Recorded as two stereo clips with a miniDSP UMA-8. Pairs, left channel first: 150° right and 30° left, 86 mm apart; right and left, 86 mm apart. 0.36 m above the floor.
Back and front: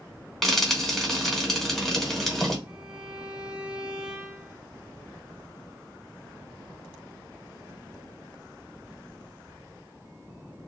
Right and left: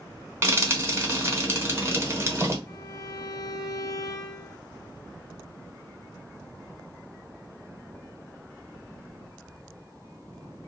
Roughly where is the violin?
Ahead right.